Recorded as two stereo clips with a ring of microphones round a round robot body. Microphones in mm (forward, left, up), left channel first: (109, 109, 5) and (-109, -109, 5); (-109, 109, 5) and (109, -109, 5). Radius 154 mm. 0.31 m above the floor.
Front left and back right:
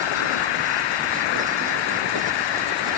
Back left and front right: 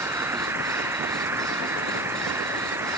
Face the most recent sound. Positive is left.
turn(degrees=40)